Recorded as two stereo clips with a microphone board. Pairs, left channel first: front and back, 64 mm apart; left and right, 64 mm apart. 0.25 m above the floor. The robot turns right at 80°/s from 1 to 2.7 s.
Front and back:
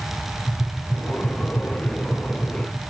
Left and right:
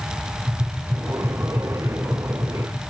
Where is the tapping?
60° right, 8 m; by 2.8 s 75° left, 8 m.